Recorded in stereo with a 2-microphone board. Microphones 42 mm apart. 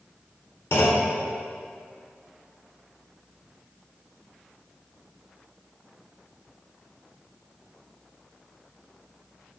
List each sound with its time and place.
0.7 s a clunk: 60° left (ahead or behind), 0.7 m